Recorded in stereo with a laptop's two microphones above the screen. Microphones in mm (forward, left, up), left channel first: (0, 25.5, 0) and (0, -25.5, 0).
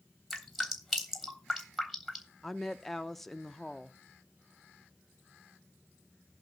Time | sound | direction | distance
0.3 | dripping | centre (ahead or behind) | 3 m
2.4 | a woman speaking | 5° left (ahead or behind) | 0.6 m